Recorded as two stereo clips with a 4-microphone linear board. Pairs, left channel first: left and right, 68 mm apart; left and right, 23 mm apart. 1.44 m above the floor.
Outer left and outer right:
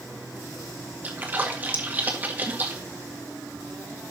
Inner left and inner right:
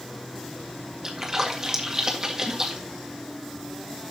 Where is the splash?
25° right (ahead or behind), 1.8 m.